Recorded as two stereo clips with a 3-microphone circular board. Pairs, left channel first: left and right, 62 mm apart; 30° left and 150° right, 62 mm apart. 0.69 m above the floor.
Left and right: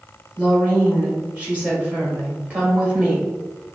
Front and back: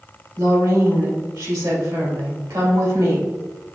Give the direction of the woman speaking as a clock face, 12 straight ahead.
5 o'clock.